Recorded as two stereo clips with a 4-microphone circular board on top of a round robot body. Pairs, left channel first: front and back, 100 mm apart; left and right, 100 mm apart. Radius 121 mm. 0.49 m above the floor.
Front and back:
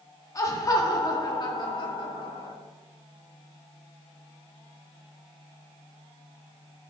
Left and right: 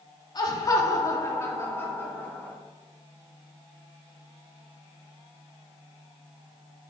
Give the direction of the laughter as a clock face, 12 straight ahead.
10 o'clock.